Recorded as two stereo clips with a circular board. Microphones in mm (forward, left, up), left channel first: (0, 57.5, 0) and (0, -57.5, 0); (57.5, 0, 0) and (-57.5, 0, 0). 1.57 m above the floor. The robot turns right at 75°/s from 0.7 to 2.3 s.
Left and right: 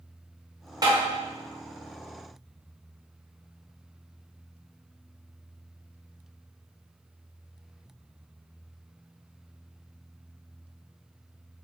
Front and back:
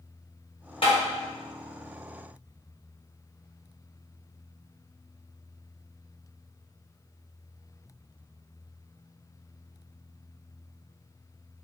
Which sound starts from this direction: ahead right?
Tapping, at 0.8 s.